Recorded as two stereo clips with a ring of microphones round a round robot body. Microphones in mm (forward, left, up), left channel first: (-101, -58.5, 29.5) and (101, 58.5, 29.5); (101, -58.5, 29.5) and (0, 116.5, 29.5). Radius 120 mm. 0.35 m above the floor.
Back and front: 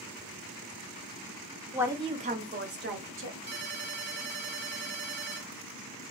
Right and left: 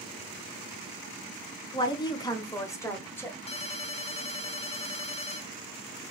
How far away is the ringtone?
About 0.9 m.